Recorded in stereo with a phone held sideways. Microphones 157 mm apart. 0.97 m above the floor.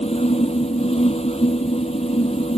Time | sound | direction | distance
0.0 | a fan | 40° left (ahead or behind) | ?